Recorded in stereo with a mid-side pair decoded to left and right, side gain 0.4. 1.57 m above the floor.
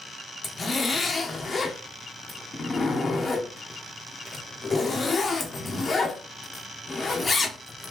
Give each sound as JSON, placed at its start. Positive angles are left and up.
{"t": 0.4, "sound": "a zipper", "azimuth_deg": 40, "distance_m": 1.0}